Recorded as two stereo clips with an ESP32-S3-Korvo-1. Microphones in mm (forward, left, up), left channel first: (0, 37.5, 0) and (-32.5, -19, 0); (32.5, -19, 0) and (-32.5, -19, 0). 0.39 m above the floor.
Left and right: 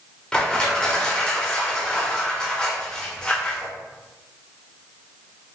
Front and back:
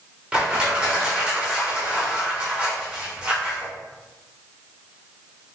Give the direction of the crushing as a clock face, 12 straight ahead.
8 o'clock.